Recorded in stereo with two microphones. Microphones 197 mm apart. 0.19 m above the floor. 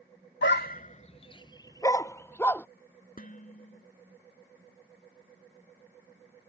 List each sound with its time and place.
0.4 s a dog barking: 65° left (ahead or behind); by 2.7 s 10° left (ahead or behind)
3.2 s dishes clattering: 45° left (ahead or behind)